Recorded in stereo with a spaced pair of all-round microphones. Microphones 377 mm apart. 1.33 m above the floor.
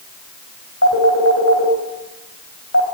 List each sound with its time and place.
0.8 s a phone ringing: 40° left (ahead or behind), 4.5 m